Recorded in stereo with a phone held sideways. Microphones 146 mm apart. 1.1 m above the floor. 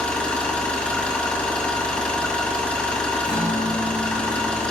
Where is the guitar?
35° left (ahead or behind), 5.5 m.